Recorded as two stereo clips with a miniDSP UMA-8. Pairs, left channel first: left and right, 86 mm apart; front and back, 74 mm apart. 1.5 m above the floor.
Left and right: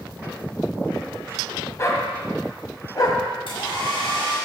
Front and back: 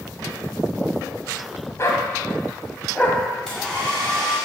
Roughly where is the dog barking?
Ahead left.